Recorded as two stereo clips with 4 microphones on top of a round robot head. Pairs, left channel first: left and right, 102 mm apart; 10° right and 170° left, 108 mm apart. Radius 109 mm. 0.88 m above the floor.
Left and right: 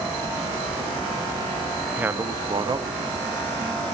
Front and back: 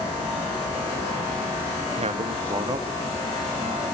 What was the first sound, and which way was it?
A man speaking, 165° right.